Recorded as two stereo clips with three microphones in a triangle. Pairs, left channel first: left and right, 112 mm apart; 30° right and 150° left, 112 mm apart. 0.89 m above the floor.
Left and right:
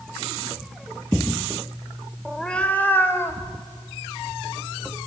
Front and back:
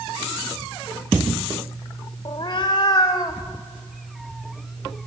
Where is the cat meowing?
Straight ahead, 0.8 m; by 5.0 s 30° left, 3.5 m.